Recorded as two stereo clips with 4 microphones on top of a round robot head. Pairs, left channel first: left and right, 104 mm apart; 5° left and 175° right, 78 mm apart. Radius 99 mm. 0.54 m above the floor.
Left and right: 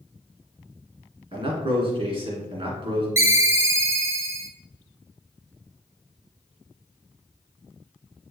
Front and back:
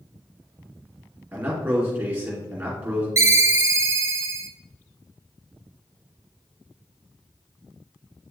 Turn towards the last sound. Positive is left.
turn(degrees=-140)